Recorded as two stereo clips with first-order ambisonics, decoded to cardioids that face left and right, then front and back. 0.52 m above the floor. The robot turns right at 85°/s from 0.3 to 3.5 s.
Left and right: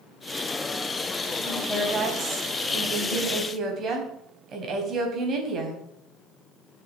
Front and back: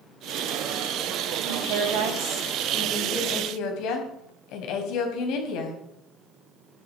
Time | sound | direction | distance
1.4 | a woman speaking | 155° left | 4 m